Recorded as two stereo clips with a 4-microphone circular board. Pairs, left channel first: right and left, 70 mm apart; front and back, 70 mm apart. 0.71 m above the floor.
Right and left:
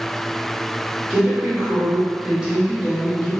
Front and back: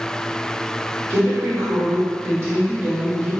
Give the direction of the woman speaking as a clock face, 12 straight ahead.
6 o'clock.